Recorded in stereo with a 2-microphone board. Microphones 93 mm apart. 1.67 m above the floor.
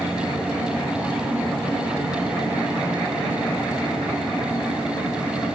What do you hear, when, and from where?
0.0 s an insect: 20° right (ahead or behind), 6.5 m